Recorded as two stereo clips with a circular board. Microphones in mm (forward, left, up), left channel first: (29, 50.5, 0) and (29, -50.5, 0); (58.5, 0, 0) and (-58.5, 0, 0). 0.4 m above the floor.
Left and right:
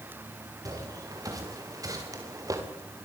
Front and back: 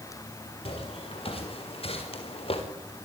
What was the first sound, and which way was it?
Footsteps, 35° right.